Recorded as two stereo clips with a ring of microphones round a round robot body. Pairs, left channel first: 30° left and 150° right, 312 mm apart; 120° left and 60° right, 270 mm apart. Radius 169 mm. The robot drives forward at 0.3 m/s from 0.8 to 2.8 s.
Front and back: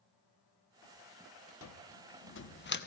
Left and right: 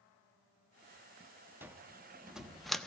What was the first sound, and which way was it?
A cupboard door, 20° left.